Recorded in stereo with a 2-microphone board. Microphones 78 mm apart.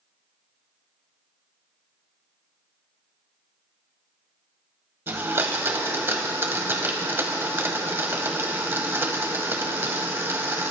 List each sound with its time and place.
5.1 s a blender: 30° right (ahead or behind), 0.9 m